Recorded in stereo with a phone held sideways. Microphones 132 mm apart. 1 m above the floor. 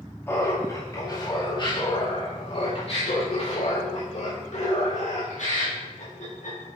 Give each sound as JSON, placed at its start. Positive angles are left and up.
{"t": 0.3, "sound": "laughter", "side_deg": 15, "distance_m": 2.5}